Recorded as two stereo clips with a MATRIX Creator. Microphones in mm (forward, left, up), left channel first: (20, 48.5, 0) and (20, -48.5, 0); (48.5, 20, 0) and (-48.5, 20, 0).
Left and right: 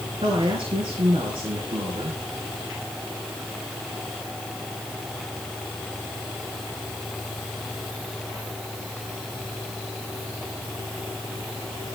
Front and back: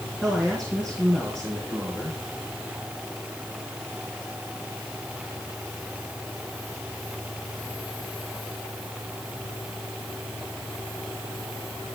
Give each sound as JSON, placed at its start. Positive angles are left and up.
{"t": 0.2, "sound": "a man speaking", "azimuth_deg": -80, "distance_m": 3.0}